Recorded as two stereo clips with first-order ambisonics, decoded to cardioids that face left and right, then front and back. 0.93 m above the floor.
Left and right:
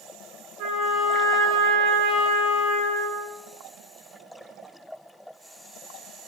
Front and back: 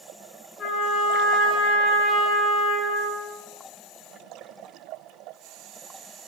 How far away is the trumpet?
About 3 m.